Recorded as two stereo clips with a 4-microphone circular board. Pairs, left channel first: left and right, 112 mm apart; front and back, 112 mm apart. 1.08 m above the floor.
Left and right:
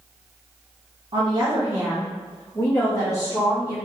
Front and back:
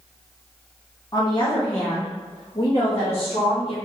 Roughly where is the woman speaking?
Ahead right.